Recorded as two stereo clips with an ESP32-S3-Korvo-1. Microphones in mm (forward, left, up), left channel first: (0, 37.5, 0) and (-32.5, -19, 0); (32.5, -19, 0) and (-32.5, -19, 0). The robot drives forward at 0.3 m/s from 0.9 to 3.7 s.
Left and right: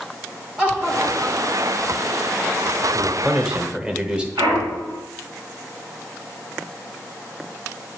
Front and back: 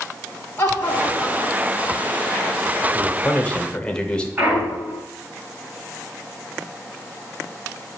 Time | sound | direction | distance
0.6 | laughter | 50° right | 1.9 m
2.9 | a man speaking | 45° right | 1.1 m
4.4 | a clunk | 115° right | 2.5 m